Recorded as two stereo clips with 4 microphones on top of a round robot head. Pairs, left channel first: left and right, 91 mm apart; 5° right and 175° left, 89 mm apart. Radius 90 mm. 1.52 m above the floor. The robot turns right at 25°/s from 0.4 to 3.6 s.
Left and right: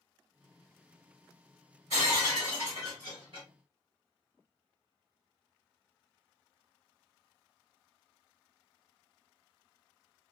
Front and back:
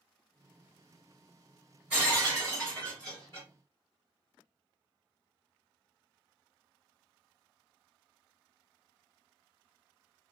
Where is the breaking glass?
105° right, 1.2 m; by 3.5 s 65° right, 1.2 m.